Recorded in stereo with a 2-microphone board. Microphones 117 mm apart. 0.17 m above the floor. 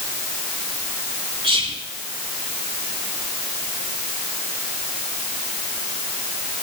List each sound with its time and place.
1.4 s whispering: 50° right (ahead or behind), 1.5 m